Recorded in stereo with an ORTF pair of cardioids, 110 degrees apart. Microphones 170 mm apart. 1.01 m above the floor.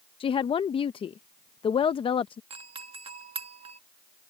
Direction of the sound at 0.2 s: 35° left.